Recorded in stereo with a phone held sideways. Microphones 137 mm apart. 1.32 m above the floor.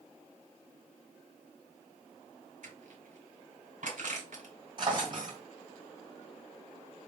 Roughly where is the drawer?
Right.